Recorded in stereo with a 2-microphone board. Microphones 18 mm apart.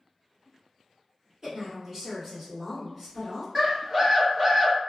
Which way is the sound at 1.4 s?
35° right (ahead or behind).